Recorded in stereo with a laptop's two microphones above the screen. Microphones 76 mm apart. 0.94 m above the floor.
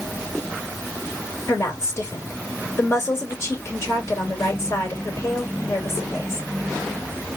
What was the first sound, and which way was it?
A woman speaking, 40° left (ahead or behind).